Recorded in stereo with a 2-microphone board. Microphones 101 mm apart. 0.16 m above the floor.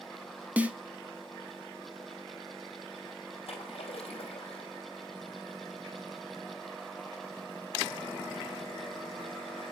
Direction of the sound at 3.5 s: 75° left (ahead or behind).